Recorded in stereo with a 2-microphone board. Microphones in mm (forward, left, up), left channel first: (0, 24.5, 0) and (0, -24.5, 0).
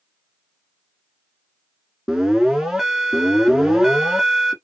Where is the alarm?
10° right (ahead or behind), 1.4 m.